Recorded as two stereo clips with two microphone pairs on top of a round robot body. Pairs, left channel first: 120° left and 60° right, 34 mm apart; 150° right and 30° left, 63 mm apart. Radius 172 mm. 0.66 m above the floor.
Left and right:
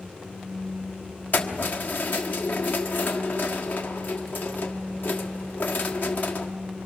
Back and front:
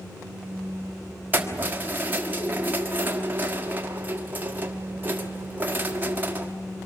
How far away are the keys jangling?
About 1.4 m.